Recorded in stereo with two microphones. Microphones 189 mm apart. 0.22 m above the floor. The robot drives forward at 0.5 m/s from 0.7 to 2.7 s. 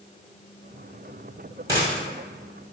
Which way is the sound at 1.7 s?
15° right (ahead or behind).